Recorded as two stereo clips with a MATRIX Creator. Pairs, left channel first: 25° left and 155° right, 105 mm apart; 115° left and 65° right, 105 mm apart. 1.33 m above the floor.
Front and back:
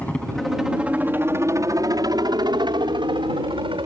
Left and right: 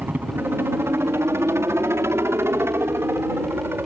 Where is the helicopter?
25° right; by 3.9 s 135° right.